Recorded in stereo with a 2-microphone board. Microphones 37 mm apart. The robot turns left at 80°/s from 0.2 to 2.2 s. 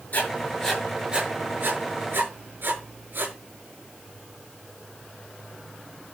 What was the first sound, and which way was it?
Writing, 50° left (ahead or behind).